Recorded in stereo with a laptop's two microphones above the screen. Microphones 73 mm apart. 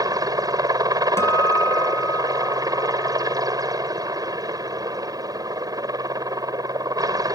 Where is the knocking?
No knocking in this recording.